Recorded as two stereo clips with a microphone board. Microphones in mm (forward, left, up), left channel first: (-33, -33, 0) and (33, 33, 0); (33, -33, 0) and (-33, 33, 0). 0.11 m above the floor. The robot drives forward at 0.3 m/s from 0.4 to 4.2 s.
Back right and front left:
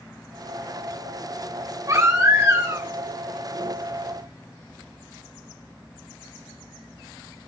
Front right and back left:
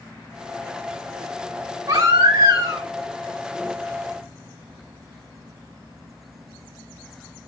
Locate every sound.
1.9 s a baby crying: 95° left, 4 m; by 2.9 s 100° left, 4 m